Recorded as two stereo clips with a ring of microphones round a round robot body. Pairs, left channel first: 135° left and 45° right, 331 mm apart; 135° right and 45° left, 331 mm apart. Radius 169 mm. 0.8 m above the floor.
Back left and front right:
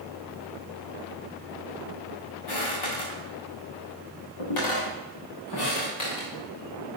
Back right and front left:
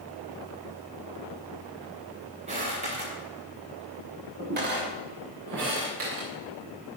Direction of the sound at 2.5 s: 115° left.